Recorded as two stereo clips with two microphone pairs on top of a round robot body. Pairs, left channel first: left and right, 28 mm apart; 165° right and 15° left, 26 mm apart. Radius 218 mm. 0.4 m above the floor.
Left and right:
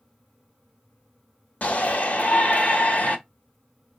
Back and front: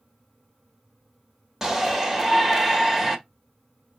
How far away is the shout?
About 1.6 m.